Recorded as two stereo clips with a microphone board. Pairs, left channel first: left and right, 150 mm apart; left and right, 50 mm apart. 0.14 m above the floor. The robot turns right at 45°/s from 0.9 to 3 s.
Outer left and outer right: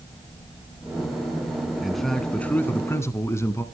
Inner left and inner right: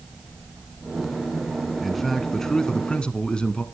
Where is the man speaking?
Centre (ahead or behind), 1.1 m; by 3.6 s 20° left (ahead or behind), 1.1 m.